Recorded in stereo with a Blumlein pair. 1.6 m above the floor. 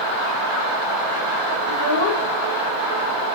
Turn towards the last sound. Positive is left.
turn(degrees=65)